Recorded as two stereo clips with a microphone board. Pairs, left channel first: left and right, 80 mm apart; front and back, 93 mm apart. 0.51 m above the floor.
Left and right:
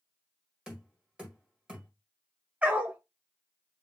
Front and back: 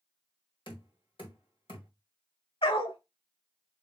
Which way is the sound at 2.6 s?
20° right.